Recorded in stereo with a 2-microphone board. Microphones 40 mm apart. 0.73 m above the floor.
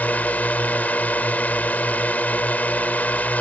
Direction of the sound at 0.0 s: 45° left (ahead or behind).